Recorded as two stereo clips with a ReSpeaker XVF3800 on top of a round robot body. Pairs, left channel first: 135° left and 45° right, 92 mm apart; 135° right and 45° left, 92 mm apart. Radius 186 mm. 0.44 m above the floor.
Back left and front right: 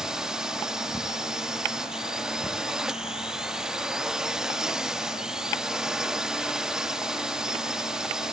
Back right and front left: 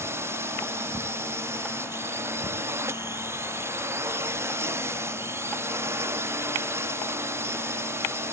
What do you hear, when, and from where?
0.0 s a drone: 30° left